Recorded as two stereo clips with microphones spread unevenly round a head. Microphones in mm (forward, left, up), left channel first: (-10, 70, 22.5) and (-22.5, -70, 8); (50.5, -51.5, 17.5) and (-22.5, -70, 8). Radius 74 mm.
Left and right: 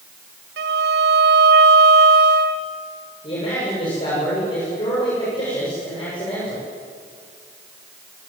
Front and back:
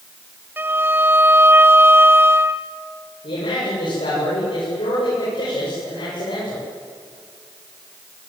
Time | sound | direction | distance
0.6 | a violin | 100° right | 1.4 m
3.2 | a man speaking | 25° left | 8.5 m